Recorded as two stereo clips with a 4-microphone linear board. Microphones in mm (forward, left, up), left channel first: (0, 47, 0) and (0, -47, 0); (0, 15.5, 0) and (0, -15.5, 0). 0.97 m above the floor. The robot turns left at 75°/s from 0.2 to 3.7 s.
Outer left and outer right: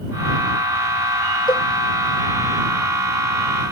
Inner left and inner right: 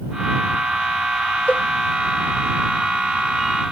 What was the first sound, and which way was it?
A cowbell, 50° left (ahead or behind).